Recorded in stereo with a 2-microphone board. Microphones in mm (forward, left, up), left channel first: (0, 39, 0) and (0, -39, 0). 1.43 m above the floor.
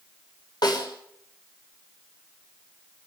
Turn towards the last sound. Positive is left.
turn(degrees=70)  # may be behind; listen again after turning